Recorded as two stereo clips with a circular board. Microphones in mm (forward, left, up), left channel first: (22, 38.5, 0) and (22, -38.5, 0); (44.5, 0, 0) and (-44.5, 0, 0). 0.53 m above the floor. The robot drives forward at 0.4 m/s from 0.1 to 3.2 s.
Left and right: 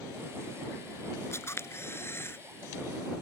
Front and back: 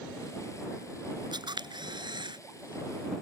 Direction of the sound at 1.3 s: 145° left.